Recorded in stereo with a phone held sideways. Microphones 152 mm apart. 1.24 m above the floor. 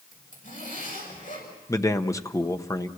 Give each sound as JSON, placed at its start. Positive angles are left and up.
{"t": 0.1, "sound": "a zipper", "side_deg": 65, "distance_m": 6.5}
{"t": 1.7, "sound": "a man speaking", "side_deg": 20, "distance_m": 0.9}